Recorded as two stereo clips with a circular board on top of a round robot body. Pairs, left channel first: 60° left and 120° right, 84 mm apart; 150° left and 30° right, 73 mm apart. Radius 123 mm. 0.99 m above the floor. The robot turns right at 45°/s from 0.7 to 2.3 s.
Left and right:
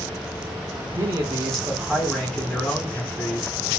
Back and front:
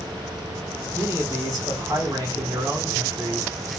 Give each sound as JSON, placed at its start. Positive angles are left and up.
{"t": 0.9, "sound": "a man speaking", "azimuth_deg": -90, "distance_m": 1.3}